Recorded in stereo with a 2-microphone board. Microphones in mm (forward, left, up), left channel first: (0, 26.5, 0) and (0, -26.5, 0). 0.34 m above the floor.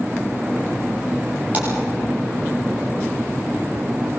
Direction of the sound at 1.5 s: 35° right (ahead or behind).